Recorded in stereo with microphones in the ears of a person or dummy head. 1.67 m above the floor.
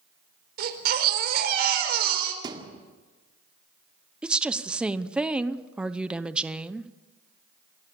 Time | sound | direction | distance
0.6 | a baby crying | 60° right (ahead or behind) | 4.5 m
2.4 | a thud | 25° right (ahead or behind) | 2 m
4.2 | a woman speaking | 5° right (ahead or behind) | 0.8 m